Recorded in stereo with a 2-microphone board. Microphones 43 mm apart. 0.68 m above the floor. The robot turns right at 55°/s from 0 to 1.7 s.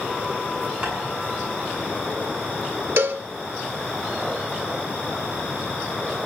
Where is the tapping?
15° right (ahead or behind), 8.5 m; by 0.9 s 20° right (ahead or behind), 8.5 m.